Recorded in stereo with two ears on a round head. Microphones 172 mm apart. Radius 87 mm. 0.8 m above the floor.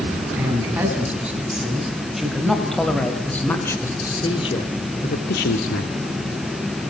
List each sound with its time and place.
0.4 s a man speaking: 10° right (ahead or behind), 8 m; by 5.9 s 70° left (ahead or behind), 2.5 m